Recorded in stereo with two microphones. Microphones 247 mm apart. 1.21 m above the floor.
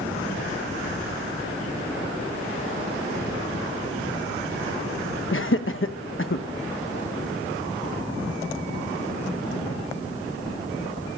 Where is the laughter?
55° left (ahead or behind), 1.1 m.